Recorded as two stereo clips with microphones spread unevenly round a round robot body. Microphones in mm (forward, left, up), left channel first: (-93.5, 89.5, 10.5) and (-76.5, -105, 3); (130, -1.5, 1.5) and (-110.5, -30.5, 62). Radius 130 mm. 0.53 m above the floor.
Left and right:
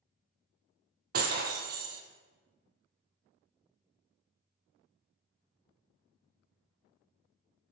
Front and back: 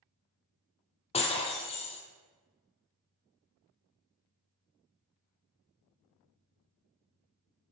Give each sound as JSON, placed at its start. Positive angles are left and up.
{"t": 1.1, "sound": "breaking glass", "azimuth_deg": -70, "distance_m": 0.6}